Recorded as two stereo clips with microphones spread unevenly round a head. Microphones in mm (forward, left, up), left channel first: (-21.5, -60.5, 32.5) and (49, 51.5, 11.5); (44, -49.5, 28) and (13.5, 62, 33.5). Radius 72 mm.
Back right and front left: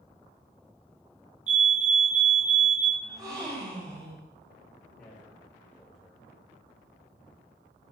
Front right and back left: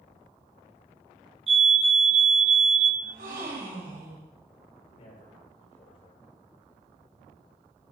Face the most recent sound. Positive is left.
turn(degrees=-40)